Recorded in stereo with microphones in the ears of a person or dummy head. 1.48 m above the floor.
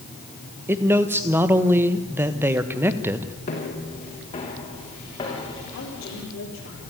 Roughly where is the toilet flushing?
No toilet flushing in this recording.